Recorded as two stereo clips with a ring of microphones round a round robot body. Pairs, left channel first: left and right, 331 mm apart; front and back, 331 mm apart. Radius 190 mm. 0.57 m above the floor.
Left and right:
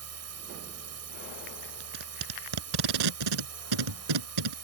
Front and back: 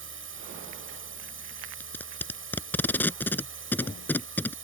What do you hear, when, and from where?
0.0 s a drone: 130° right
1.8 s tape being pulled: 85° right